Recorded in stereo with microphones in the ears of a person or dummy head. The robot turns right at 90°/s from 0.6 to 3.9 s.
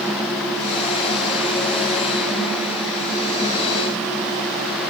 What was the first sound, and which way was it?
Only background noise.